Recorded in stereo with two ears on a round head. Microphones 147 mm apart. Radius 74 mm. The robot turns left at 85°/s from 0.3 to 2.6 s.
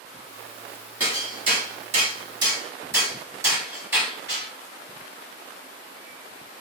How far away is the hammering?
About 1.1 m.